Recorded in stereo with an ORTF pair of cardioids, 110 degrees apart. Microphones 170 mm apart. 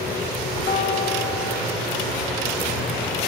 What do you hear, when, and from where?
0.7 s a guitar: 50° left, 3.5 m